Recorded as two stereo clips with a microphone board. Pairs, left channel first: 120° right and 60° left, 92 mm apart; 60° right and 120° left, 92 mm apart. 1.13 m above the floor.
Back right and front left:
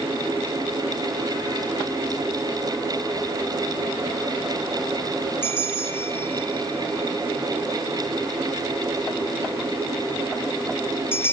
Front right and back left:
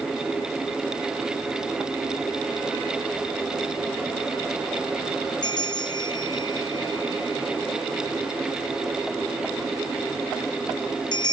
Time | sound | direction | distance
5.4 | a bell | 65° right | 1.4 m